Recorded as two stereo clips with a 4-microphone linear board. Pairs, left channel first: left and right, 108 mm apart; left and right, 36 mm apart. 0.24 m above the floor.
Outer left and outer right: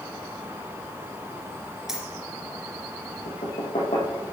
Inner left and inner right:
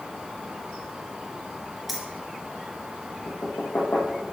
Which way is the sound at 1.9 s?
5° right (ahead or behind).